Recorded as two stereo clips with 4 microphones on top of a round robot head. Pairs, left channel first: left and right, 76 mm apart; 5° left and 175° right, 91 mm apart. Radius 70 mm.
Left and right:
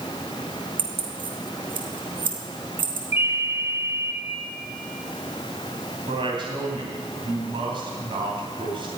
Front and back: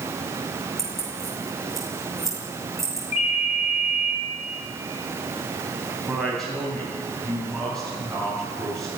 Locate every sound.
0.8 s keys jangling: 85° right, 3 m
3.1 s a ringtone: 30° right, 8 m
6.1 s a woman speaking: 80° right, 3 m